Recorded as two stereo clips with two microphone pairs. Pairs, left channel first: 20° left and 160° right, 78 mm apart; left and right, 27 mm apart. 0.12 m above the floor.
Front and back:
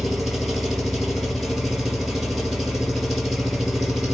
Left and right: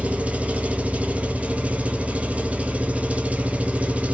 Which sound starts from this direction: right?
An engine running, at 0.0 s.